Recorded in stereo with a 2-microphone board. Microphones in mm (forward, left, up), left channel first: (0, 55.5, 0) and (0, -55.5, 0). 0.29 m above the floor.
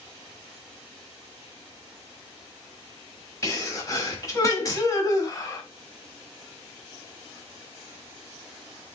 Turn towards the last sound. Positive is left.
turn(degrees=30)  # may be behind; listen again after turning